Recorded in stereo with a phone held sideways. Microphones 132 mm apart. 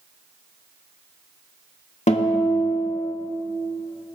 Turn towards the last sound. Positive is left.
turn(degrees=60)  # may be behind; listen again after turning